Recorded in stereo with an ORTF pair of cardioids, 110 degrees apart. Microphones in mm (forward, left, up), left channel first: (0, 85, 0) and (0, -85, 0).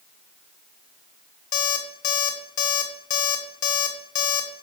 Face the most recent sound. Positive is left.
turn(degrees=45)